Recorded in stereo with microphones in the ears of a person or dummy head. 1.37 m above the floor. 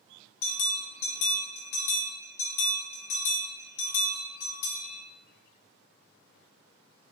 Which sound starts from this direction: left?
A bell, at 0.4 s.